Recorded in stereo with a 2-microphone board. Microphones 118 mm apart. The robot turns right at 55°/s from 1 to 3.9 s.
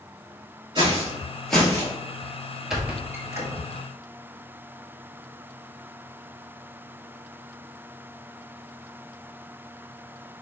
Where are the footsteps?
40° right (ahead or behind), 1.2 m; by 1.9 s 35° left (ahead or behind), 1.3 m.